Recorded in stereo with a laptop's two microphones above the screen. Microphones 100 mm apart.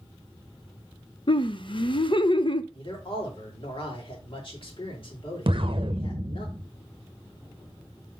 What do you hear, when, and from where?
1.3 s laughter: 55° left (ahead or behind), 0.7 m
2.7 s a man speaking: 60° left (ahead or behind), 4 m
5.5 s an explosion: 55° right (ahead or behind), 0.6 m